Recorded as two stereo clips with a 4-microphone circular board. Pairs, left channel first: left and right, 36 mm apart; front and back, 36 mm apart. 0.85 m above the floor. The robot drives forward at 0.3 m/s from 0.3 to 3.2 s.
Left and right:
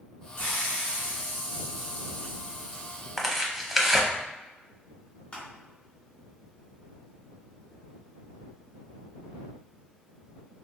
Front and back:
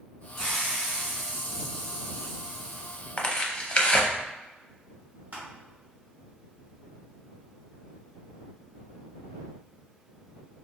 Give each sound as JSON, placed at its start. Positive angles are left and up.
{"t": 0.4, "sound": "a hiss", "azimuth_deg": 80, "distance_m": 2.0}
{"t": 3.2, "sound": "tearing paper", "azimuth_deg": -15, "distance_m": 0.6}
{"t": 5.3, "sound": "crushing", "azimuth_deg": 150, "distance_m": 1.5}